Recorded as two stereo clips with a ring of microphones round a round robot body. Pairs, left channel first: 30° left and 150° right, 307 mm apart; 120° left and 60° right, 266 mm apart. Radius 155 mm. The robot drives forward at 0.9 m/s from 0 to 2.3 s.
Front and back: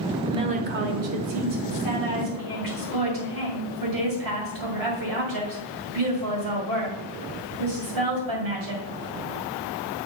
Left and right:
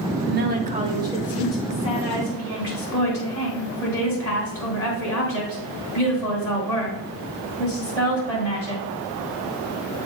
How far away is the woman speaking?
About 1.0 m.